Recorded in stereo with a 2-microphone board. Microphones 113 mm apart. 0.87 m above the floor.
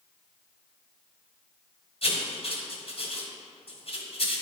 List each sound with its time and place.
2.0 s writing: 60° left (ahead or behind), 1.2 m